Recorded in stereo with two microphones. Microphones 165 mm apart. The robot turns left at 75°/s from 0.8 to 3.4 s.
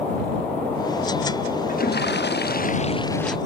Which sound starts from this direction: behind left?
A toilet flushing, at 1.7 s.